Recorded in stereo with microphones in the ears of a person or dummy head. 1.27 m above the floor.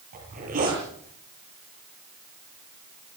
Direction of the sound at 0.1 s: 40° right (ahead or behind).